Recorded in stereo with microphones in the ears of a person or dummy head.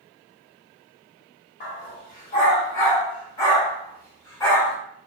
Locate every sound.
1.6 s a dog barking: 30° left (ahead or behind), 1.4 m; by 4.8 s 10° left (ahead or behind), 1.8 m